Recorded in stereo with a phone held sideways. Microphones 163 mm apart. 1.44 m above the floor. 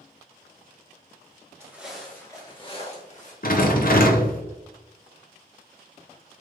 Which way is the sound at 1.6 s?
15° right (ahead or behind).